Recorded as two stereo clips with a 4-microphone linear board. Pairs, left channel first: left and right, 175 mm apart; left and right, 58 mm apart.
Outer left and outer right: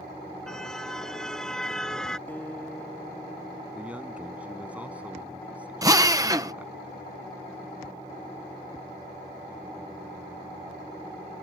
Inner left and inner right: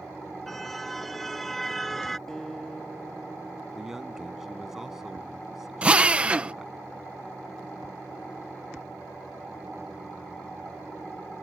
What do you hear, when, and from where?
0.5 s a car horn: 5° left (ahead or behind)
2.3 s a guitar: 10° left (ahead or behind)
3.8 s a man speaking: 10° right (ahead or behind)
5.8 s a drill: 20° right (ahead or behind)